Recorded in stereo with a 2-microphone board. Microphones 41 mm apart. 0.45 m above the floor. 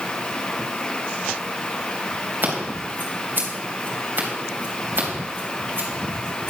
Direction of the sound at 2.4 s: 55° right (ahead or behind).